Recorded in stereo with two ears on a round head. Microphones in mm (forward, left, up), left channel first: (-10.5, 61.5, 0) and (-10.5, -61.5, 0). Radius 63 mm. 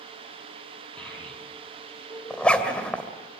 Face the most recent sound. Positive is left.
turn(degrees=10)  # may be behind; listen again after turning